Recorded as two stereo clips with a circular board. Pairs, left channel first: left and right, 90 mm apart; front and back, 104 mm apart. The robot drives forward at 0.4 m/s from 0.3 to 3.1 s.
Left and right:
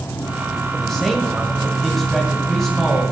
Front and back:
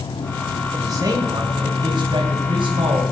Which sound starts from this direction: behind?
A man speaking, at 0.7 s.